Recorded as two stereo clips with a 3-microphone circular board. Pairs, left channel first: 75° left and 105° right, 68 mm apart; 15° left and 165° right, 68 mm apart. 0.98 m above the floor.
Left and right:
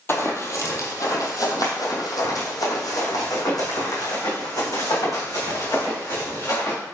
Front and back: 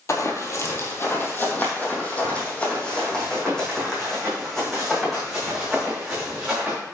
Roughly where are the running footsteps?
Ahead left.